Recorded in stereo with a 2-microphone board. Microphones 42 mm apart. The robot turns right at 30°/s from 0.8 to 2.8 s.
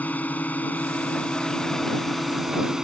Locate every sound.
0.0 s a drone: 135° left; by 2.8 s 165° right